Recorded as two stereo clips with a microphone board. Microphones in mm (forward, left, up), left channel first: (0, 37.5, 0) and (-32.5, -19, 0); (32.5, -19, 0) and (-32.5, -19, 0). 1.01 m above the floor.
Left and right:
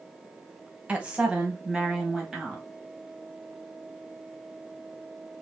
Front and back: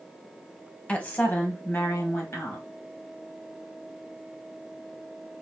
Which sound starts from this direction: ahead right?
A woman speaking, at 0.9 s.